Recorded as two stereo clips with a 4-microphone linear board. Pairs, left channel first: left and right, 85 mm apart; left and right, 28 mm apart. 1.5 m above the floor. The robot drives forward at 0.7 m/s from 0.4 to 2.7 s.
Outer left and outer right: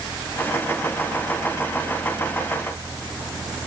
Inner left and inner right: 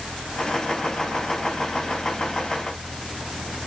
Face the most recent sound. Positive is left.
No sound to turn to.